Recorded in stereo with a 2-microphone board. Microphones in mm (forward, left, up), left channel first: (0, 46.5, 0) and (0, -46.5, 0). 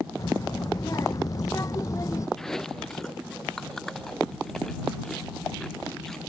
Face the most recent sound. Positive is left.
turn(degrees=5)  # may be behind; listen again after turning